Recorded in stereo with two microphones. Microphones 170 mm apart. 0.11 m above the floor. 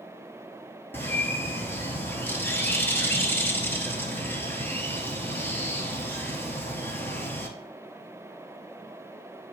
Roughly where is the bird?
Centre.